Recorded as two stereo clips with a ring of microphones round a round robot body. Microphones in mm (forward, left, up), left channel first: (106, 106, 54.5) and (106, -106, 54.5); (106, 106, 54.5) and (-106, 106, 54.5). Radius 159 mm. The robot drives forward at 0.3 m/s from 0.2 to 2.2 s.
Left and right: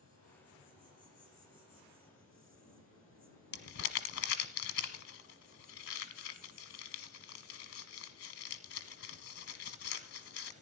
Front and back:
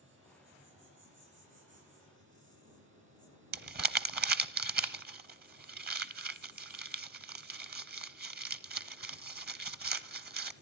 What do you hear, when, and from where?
0.0 s an insect: 150° left, 7 m; by 10.6 s 155° left, 7.5 m
3.5 s crumpling: 135° left, 0.8 m